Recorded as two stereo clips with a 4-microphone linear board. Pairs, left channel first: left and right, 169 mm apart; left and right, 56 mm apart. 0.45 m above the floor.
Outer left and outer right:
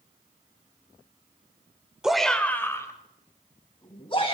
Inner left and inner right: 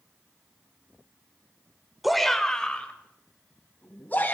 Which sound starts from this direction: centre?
A shout, at 2.0 s.